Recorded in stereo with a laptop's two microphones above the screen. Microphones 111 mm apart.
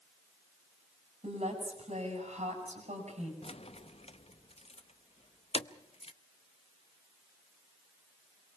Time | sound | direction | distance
1.2 | a woman speaking | 85° right | 8 m
3.4 | keys jangling | 65° left (ahead or behind) | 0.6 m